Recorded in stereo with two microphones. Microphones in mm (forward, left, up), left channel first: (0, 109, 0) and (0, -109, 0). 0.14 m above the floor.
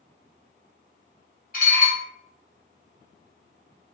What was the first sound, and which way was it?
Dishes clattering, 40° left (ahead or behind).